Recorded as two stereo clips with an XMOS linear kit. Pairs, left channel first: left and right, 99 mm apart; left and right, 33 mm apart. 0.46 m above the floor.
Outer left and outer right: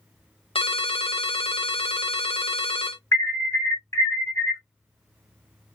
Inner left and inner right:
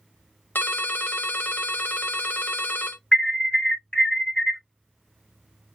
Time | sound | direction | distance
0.6 | a ringtone | 75° left (ahead or behind) | 0.7 m
3.1 | an alarm | 25° left (ahead or behind) | 1.6 m